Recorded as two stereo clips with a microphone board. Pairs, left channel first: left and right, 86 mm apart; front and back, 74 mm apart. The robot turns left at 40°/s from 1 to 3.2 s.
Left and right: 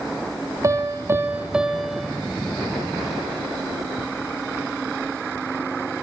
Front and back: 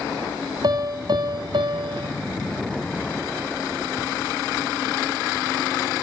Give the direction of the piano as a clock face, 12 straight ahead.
5 o'clock.